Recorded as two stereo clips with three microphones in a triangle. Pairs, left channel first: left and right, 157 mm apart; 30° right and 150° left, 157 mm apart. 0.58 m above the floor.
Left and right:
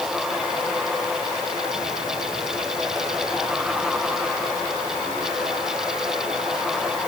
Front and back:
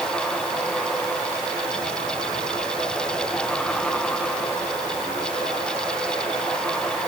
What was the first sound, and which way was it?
Only background noise.